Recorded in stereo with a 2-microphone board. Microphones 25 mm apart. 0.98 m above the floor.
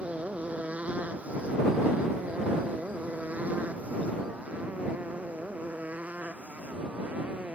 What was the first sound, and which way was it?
A motorcycle, 60° right (ahead or behind).